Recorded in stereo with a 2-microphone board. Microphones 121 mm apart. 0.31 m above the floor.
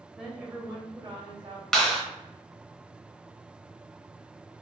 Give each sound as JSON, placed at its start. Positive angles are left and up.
{"t": 0.2, "sound": "a woman speaking", "side_deg": 0, "distance_m": 1.0}
{"t": 1.7, "sound": "a clap", "side_deg": 5, "distance_m": 0.9}